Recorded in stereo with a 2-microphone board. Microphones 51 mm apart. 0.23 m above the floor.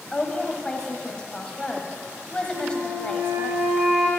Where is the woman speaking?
20° left (ahead or behind), 1.0 m.